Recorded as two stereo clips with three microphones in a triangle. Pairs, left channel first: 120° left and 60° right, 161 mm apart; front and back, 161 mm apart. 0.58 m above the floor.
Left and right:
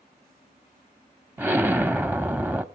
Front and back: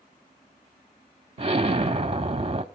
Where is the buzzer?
I don't hear a buzzer.